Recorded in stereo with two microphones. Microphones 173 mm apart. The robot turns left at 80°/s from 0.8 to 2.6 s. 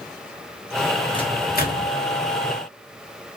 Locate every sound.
1.1 s a microwave: 25° left (ahead or behind), 0.9 m; by 1.9 s 75° left (ahead or behind), 0.9 m